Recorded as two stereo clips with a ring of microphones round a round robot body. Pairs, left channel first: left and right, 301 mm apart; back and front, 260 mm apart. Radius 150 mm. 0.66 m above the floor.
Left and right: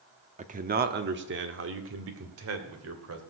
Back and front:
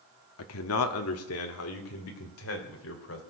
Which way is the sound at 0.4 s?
155° right.